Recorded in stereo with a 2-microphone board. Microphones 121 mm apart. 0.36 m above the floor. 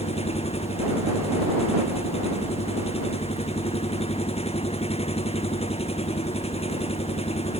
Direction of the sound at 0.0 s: 55° left (ahead or behind).